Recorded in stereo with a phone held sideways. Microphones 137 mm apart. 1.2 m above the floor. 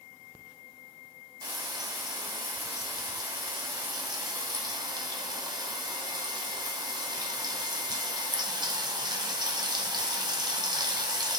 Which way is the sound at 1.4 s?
30° right (ahead or behind).